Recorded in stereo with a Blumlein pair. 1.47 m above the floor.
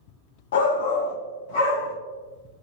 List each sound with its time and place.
0.5 s a shout: 60° left, 0.6 m; by 1.9 s 50° left, 1.4 m